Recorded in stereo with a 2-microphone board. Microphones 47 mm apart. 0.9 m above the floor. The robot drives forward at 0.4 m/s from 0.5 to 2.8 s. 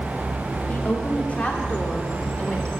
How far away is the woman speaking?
About 1.7 m.